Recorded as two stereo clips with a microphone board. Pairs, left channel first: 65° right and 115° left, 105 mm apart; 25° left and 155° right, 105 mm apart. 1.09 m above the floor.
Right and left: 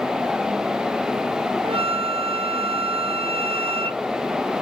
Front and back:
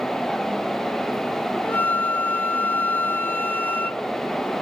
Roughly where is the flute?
Left.